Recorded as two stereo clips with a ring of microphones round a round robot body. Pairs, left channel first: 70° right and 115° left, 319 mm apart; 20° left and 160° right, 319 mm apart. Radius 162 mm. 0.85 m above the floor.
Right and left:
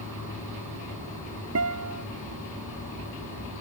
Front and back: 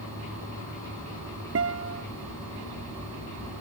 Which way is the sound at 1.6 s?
155° left.